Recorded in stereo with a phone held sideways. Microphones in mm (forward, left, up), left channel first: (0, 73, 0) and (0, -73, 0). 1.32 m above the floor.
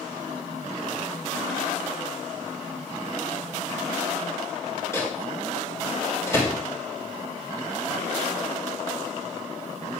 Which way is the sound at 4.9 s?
20° left (ahead or behind).